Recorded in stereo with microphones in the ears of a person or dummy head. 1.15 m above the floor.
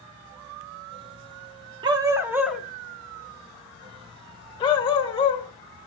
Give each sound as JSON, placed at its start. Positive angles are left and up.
{"t": 1.8, "sound": "a dog barking", "side_deg": -25, "distance_m": 0.7}